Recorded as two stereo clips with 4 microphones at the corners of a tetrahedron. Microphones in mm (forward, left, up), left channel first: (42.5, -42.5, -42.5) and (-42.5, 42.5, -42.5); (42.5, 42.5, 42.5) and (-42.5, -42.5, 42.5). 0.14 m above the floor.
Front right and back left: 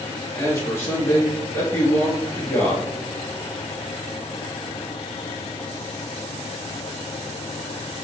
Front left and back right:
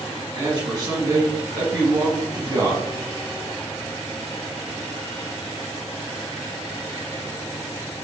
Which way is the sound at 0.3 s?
100° right.